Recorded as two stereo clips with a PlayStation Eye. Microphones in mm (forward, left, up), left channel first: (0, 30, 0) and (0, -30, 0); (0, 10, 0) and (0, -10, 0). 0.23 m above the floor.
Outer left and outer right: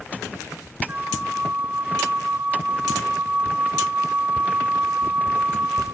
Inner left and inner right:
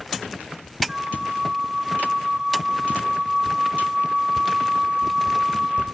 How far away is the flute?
About 1.8 m.